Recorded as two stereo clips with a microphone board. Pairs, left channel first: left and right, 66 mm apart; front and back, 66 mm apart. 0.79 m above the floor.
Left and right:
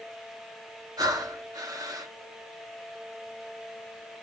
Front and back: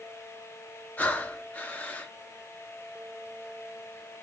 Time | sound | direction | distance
1.0 | breathing | 65° right | 0.6 m